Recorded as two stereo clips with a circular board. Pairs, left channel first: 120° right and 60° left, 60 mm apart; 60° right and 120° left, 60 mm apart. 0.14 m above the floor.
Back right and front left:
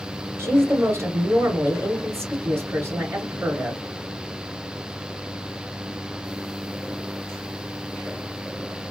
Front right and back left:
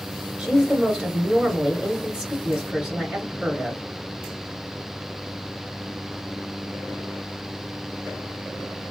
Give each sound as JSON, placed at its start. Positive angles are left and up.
{"t": 0.4, "sound": "a woman speaking", "azimuth_deg": 55, "distance_m": 2.0}